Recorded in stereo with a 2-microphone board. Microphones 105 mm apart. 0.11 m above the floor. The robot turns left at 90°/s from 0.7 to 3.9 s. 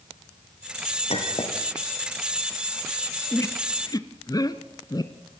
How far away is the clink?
About 4 m.